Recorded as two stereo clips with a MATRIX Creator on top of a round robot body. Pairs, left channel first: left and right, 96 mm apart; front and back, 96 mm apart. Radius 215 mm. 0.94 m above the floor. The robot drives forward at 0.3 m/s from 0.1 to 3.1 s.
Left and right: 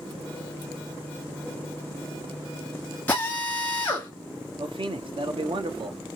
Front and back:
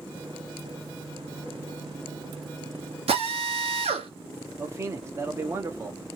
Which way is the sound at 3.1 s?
165° left.